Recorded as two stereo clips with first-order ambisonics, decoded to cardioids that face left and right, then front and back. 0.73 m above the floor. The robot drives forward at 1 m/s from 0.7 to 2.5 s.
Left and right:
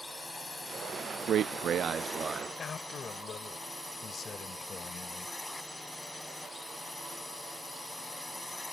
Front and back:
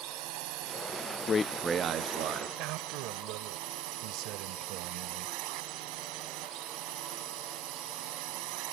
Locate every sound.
0.0 s a drone: 175° left
1.3 s a man speaking: 50° right; by 2.5 s 165° right
2.6 s a man speaking: 155° left